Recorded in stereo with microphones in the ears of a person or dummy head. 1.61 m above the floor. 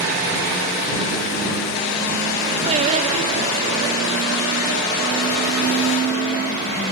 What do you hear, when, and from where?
2.7 s singing: 40° right (ahead or behind)